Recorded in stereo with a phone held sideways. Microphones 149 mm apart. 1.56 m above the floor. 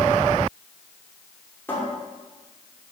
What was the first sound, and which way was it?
A cupboard door, 15° left (ahead or behind).